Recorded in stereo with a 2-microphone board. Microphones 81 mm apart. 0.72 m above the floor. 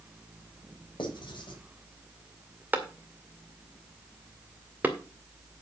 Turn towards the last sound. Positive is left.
turn(degrees=-20)  # may be behind; listen again after turning